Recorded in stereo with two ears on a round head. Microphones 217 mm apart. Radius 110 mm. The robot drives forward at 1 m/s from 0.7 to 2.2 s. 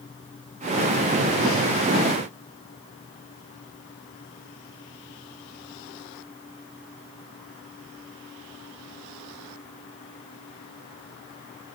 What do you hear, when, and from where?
Only background noise.